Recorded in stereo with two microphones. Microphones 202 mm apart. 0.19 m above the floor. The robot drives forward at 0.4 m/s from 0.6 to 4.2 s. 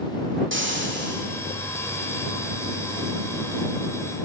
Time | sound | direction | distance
0.5 | frying | 65° right (ahead or behind) | 1.4 m